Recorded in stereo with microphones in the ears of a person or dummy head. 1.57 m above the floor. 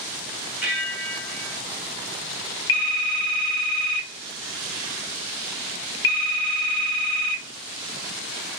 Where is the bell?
5° left (ahead or behind), 0.8 m.